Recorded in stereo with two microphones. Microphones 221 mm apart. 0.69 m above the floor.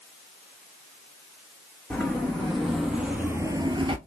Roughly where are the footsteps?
Centre.